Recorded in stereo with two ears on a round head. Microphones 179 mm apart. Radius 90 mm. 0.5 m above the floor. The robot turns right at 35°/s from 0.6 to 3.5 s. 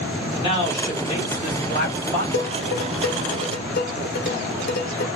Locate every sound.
0.3 s a man speaking: 45° left, 1.3 m; by 2.2 s 100° left, 1.3 m
2.3 s dishes clattering: 60° left (ahead or behind), 0.9 m; by 5.1 s 50° left (ahead or behind), 0.9 m